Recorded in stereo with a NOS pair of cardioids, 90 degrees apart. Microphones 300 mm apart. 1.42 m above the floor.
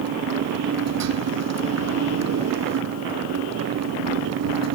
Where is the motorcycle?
65° right.